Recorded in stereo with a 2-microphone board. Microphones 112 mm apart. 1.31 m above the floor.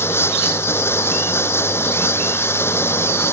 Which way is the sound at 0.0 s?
20° left (ahead or behind).